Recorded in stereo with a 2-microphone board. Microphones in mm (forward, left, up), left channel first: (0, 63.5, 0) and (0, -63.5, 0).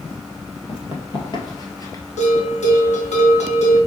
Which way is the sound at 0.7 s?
40° left (ahead or behind).